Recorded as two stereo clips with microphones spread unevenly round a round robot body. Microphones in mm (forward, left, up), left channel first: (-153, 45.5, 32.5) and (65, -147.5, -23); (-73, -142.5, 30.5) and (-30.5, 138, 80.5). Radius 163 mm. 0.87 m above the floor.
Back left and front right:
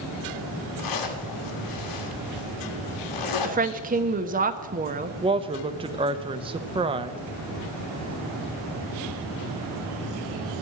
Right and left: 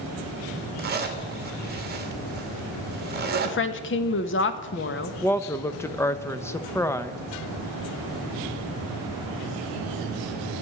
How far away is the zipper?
About 2.0 m.